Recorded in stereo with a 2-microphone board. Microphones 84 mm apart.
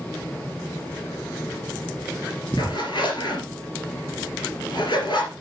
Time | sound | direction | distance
2.6 | a zipper | 65° left (ahead or behind) | 3 m